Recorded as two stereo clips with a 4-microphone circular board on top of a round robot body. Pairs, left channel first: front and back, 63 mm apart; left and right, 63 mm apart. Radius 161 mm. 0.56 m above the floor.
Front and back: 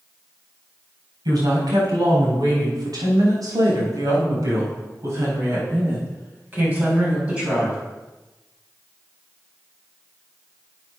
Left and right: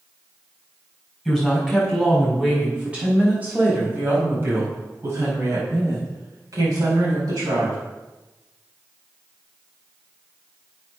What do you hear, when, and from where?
1.2 s a woman speaking: 175° right, 6 m; by 7.8 s 105° right, 5 m